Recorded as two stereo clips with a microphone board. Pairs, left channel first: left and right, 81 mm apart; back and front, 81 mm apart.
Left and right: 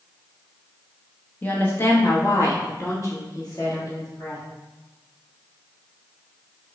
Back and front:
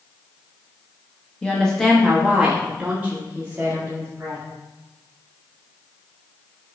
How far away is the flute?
No flute in this recording.